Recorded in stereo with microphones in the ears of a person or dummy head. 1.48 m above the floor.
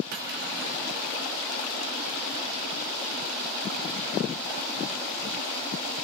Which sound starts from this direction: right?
Cutlery clinking, at 0.1 s.